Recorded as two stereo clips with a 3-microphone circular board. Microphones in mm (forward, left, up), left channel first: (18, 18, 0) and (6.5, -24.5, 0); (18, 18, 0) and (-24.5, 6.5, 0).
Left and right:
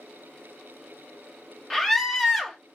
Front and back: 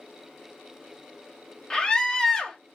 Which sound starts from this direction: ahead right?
A scream, at 1.7 s.